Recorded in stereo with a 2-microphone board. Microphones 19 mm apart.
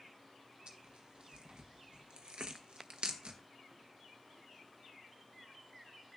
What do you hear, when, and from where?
0.7 s tearing paper: 65° right (ahead or behind), 1.0 m